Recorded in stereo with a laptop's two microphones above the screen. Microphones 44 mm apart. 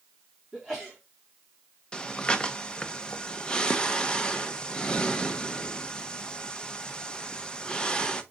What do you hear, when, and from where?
0.5 s a sneeze: 5° right (ahead or behind), 2.5 m
1.9 s breathing: 20° left (ahead or behind), 1.0 m